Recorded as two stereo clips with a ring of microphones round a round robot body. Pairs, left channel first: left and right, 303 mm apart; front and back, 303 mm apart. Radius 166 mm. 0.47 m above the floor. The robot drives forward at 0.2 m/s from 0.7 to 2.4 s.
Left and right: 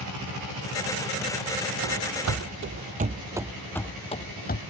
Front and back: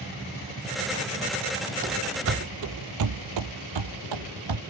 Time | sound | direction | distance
1.8 | running footsteps | 115° right | ?